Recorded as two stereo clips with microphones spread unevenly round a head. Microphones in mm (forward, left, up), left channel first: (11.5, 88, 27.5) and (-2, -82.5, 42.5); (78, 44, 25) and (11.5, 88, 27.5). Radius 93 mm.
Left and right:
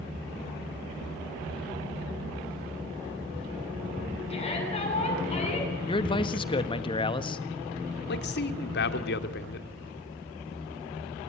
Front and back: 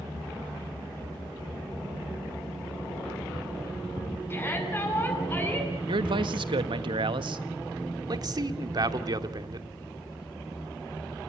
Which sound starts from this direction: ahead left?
A shout, at 4.3 s.